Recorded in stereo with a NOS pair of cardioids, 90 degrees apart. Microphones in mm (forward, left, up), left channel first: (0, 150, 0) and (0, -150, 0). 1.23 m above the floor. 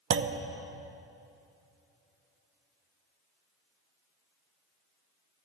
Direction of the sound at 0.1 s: 45° right.